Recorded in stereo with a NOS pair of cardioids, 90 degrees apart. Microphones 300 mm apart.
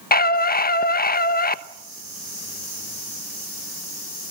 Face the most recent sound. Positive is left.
turn(degrees=30)